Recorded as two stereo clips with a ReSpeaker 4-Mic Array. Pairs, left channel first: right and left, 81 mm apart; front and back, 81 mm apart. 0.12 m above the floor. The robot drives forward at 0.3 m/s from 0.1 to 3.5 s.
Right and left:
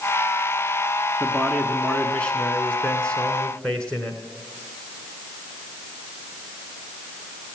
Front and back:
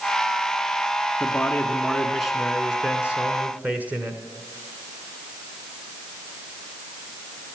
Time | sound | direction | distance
1.2 | a man speaking | 40° right | 1.1 m